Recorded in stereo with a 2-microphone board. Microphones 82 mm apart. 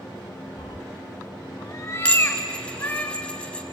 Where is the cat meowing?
80° left, 0.8 m; by 3.0 s 20° left (ahead or behind), 2.5 m.